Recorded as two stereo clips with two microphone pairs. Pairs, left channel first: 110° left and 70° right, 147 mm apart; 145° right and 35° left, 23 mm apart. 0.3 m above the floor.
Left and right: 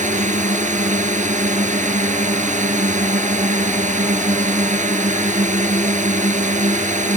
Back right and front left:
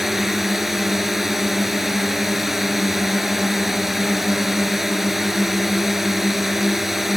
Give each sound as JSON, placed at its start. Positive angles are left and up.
{"t": 0.0, "sound": "a drone", "azimuth_deg": -40}